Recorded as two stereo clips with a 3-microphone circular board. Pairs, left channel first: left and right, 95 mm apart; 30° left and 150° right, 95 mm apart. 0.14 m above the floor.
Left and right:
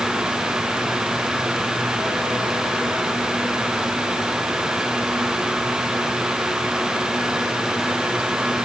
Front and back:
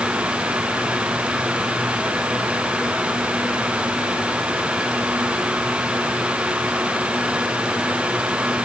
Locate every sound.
Only background noise.